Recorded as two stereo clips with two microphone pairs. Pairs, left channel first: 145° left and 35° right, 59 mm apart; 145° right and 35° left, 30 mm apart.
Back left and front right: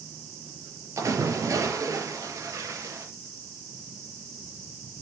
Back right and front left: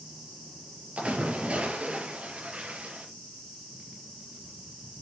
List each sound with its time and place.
1.0 s a splash: 10° right, 5 m